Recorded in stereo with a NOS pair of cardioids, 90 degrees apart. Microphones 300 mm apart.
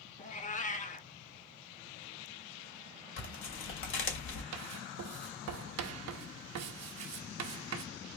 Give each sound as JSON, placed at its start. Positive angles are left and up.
{"t": 0.2, "sound": "a cat meowing", "azimuth_deg": 25, "distance_m": 0.9}
{"t": 3.2, "sound": "tearing paper", "azimuth_deg": 45, "distance_m": 2.5}
{"t": 4.5, "sound": "writing", "azimuth_deg": -65, "distance_m": 0.9}